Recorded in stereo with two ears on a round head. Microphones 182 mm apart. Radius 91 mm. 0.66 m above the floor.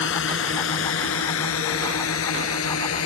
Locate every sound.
0.0 s a drone: 65° left (ahead or behind); by 3.1 s 80° left